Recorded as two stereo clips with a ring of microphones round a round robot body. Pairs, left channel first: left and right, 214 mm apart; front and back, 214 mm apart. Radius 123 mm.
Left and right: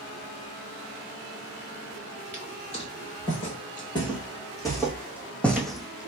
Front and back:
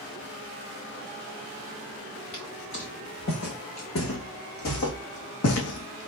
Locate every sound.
2.3 s footsteps: 30° left, 3 m; by 6.1 s 5° right, 1.3 m